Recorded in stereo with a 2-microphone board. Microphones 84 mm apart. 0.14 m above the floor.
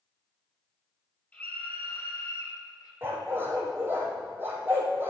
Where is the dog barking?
25° right (ahead or behind), 2.5 m.